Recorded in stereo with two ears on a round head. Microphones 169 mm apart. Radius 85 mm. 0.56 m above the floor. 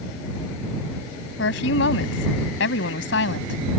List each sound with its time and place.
1.4 s a woman speaking: 70° left (ahead or behind)